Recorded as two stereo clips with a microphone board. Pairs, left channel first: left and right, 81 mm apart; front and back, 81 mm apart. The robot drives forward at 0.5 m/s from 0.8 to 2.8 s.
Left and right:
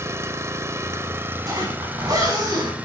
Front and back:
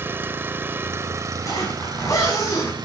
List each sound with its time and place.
0.0 s an engine running: 130° right, 0.8 m; by 2.9 s 160° right, 1.6 m
1.4 s a zipper: 45° right, 7 m; by 2.8 s 50° right, 6.5 m